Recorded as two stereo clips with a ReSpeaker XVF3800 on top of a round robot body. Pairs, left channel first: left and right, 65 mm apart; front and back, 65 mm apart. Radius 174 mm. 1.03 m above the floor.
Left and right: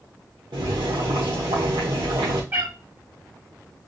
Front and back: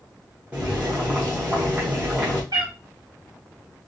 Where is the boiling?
115° right, 0.7 m.